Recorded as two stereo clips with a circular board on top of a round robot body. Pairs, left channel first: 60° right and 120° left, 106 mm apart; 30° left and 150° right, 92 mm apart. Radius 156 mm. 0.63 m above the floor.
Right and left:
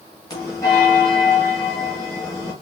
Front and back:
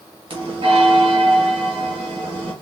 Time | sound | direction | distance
0.3 | a bell | 120° right | 1.3 m